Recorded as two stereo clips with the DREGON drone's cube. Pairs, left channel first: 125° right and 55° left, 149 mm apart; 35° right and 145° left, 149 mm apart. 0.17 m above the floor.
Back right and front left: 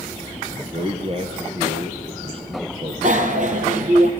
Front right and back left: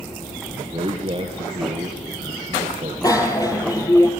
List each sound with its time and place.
0.5 s a man speaking: 100° left, 3 m
3.0 s a bicycle bell: 30° left, 3 m